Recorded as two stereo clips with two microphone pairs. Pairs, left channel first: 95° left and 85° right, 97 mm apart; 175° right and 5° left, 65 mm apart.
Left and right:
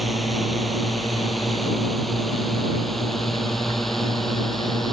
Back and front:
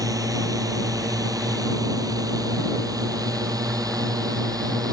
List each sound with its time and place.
0.0 s a drone: straight ahead; by 4.9 s 5° left